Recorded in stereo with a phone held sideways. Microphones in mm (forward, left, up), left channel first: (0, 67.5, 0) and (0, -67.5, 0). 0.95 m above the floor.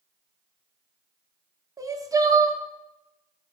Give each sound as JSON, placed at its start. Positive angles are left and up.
{"t": 1.8, "sound": "crying", "side_deg": -25, "distance_m": 0.5}